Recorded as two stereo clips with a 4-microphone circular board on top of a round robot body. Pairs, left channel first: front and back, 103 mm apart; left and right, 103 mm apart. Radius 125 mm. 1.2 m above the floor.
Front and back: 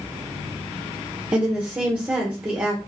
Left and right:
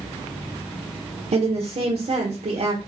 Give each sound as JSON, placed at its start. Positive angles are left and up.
{"t": 1.3, "sound": "a woman speaking", "azimuth_deg": -100, "distance_m": 0.9}